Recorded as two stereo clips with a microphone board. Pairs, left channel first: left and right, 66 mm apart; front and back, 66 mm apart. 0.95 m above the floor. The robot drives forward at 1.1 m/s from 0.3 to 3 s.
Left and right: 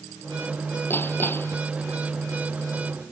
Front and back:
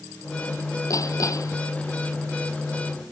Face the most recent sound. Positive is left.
turn(degrees=35)